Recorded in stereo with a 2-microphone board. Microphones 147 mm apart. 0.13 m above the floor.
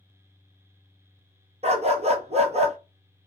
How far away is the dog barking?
About 0.6 m.